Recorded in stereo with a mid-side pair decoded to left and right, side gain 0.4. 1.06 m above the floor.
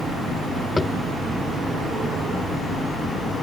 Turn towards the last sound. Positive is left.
turn(degrees=25)